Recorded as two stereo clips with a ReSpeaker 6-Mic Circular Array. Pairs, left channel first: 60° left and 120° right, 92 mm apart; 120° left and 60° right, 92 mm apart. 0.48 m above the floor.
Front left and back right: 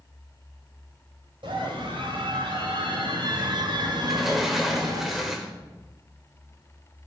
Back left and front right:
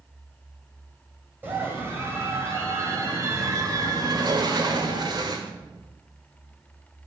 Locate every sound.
1.4 s a scream: 125° right, 3 m; by 5.0 s 85° right, 2.5 m
4.0 s a sliding door: 35° right, 1.5 m